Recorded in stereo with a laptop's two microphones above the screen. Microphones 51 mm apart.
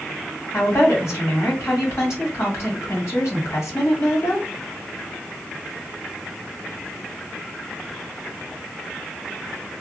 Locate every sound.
0.5 s a woman speaking: 65° left (ahead or behind), 1.7 m